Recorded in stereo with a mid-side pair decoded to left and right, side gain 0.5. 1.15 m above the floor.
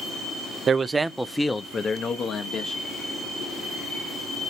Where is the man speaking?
45° right, 0.5 m; by 2.8 s 60° left, 1.2 m.